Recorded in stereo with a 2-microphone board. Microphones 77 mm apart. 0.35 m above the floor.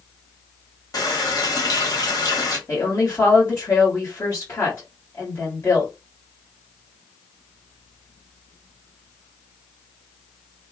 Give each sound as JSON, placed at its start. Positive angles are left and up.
{"t": 0.9, "sound": "a running tap", "side_deg": 50, "distance_m": 1.2}
{"t": 2.7, "sound": "a woman speaking", "side_deg": 35, "distance_m": 1.5}